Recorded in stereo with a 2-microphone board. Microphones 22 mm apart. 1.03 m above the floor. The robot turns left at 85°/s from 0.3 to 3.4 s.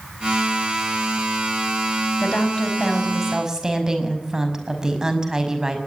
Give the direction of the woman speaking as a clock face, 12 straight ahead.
10 o'clock.